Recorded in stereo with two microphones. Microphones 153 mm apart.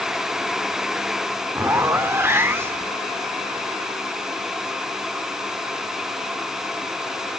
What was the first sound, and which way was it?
A zipper, 15° right (ahead or behind).